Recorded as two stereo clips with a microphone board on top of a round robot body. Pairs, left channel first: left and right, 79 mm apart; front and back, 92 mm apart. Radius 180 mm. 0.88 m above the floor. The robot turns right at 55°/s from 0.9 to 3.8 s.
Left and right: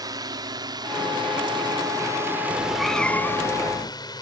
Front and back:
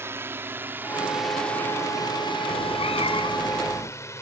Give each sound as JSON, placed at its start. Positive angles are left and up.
{"t": 0.0, "sound": "a drone", "azimuth_deg": -120}
{"t": 2.5, "sound": "a cat meowing", "azimuth_deg": -15}